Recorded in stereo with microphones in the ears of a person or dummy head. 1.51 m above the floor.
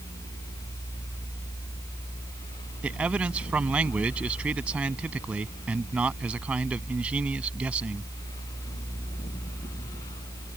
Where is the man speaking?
15° right (ahead or behind).